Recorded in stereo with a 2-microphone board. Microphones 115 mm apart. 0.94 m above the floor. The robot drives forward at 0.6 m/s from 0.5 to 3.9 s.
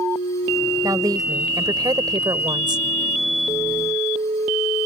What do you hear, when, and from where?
0.8 s a woman speaking: 30° right (ahead or behind); by 2.9 s 40° right (ahead or behind)